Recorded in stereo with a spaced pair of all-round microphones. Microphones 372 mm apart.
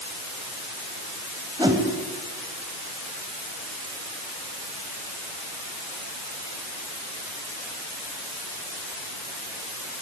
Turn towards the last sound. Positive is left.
turn(degrees=-10)  # may be behind; listen again after turning